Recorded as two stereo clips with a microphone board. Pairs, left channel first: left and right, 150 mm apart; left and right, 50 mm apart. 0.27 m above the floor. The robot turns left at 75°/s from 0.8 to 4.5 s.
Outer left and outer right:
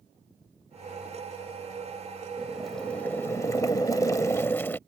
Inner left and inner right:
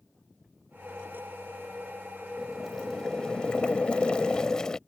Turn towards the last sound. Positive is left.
turn(degrees=15)  # may be behind; listen again after turning